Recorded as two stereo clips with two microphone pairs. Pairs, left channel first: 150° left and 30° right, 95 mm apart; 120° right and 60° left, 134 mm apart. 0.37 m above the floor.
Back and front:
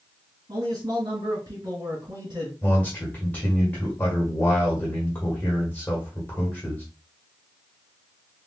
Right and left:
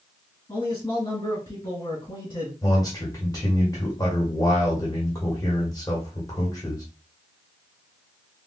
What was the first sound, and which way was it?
A man speaking, 65° right.